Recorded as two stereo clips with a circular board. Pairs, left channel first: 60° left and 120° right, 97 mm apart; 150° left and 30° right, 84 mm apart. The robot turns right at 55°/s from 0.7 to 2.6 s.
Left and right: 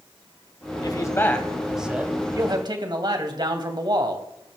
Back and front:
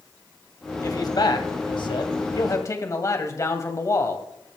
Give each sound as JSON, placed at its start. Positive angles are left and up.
{"t": 0.8, "sound": "a man speaking", "azimuth_deg": 105, "distance_m": 2.0}